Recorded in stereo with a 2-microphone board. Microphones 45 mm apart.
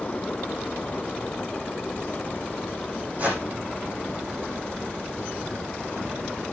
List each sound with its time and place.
3.2 s a whoosh: 40° right (ahead or behind), 7.5 m